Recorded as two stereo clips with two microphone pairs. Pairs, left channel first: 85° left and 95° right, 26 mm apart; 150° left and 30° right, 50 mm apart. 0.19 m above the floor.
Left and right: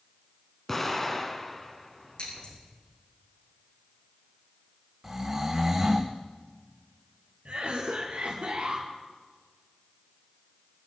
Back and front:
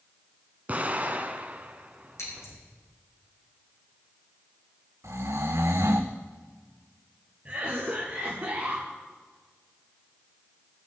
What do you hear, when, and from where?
0.7 s an explosion: 15° left, 1.8 m
2.2 s scissors: 135° left, 9.5 m
5.0 s snoring: 25° right, 2.5 m
7.5 s a cough: 85° right, 3 m